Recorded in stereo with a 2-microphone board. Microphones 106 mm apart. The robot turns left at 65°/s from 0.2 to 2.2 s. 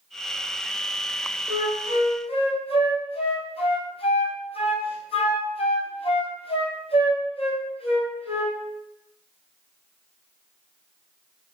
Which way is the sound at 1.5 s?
30° left (ahead or behind).